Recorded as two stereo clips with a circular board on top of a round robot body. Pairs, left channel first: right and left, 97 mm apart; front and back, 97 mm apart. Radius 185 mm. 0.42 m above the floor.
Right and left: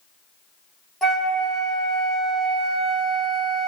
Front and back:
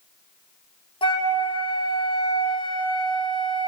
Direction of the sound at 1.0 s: Straight ahead.